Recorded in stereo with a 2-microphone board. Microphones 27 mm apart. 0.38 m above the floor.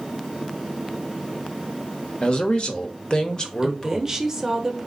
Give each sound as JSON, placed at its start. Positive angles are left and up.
{"t": 2.2, "sound": "a man speaking", "side_deg": 35, "distance_m": 0.9}
{"t": 3.6, "sound": "a woman speaking", "side_deg": -20, "distance_m": 1.0}